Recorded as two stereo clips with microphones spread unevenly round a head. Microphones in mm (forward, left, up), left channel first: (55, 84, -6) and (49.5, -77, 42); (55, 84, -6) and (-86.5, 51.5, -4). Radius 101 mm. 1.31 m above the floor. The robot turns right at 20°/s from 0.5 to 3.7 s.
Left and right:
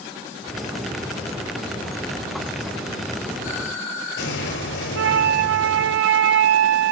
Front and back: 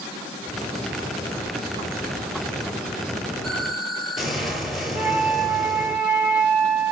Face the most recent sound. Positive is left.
turn(degrees=-90)